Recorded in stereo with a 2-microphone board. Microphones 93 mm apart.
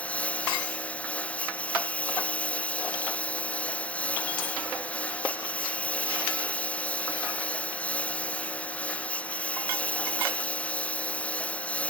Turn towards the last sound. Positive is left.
turn(degrees=15)  # may be behind; listen again after turning